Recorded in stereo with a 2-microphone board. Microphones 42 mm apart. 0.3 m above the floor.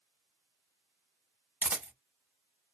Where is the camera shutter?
45° right (ahead or behind), 0.8 m.